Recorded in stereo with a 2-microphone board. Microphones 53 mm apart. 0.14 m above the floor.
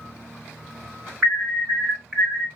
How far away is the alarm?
About 1.3 m.